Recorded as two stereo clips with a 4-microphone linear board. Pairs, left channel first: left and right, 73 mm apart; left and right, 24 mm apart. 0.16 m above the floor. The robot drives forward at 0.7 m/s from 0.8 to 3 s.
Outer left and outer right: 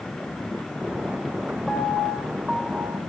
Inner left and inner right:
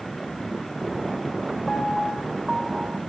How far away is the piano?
About 1.9 m.